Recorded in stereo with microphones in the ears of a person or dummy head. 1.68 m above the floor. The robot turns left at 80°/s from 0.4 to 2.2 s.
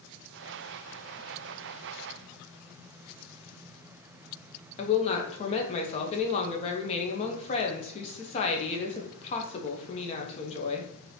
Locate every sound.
4.8 s a woman speaking: 35° left (ahead or behind), 0.9 m